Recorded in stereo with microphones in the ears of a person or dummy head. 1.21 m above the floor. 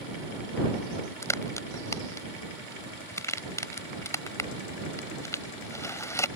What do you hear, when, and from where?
1.2 s a crack: 20° left (ahead or behind)